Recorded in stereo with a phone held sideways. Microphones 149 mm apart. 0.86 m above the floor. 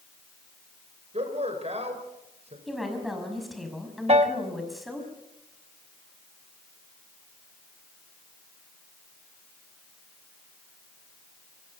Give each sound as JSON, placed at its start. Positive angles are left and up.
{"t": 1.1, "sound": "a man speaking", "side_deg": -45, "distance_m": 4.5}
{"t": 2.7, "sound": "a woman speaking", "side_deg": 0, "distance_m": 5.5}
{"t": 4.1, "sound": "a piano", "side_deg": -45, "distance_m": 1.1}